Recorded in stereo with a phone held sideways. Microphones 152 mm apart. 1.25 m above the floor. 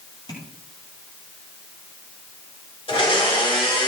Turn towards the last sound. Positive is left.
turn(degrees=40)  # may be behind; listen again after turning